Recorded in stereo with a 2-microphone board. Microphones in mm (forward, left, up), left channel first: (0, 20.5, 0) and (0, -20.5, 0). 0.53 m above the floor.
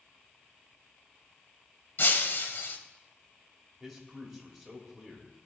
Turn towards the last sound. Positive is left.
turn(degrees=5)  # may be behind; listen again after turning